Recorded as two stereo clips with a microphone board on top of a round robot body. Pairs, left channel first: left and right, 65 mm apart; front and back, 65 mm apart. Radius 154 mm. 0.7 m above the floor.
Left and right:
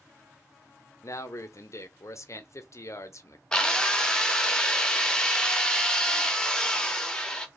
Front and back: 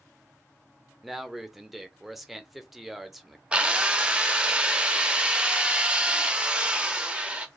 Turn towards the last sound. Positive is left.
turn(degrees=145)